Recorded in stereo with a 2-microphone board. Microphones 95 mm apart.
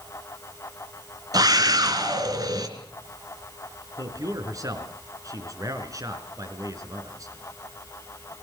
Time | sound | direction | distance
1.3 | a scream | 45° right (ahead or behind) | 3.5 m
4.0 | a man speaking | 35° right (ahead or behind) | 4 m